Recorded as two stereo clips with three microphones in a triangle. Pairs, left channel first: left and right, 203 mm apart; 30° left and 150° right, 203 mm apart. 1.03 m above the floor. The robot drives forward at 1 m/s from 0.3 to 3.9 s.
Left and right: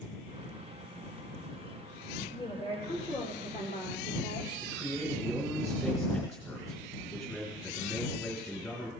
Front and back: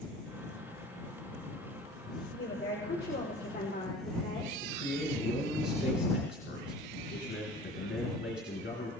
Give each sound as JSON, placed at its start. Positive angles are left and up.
{"t": 2.3, "sound": "a woman speaking", "azimuth_deg": 30, "distance_m": 4.0}
{"t": 4.6, "sound": "a man speaking", "azimuth_deg": 15, "distance_m": 4.0}